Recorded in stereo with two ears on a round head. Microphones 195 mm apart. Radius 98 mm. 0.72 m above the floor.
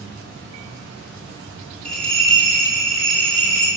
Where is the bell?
5° left (ahead or behind), 1.9 m.